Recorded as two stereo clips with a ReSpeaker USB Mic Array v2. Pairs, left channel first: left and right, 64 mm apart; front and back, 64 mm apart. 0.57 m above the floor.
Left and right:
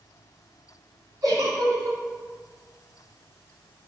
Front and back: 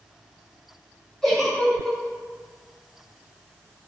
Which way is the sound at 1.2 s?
85° right.